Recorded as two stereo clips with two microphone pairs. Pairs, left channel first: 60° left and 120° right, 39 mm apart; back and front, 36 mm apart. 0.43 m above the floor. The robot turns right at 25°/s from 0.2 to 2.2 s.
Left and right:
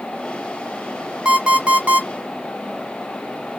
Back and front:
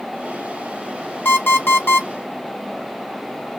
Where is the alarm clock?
170° left, 1.4 m; by 2.1 s 170° right, 1.4 m.